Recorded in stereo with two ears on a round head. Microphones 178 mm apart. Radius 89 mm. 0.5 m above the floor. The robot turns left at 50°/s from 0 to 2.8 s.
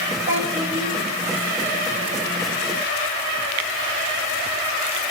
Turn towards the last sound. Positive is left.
turn(degrees=-155)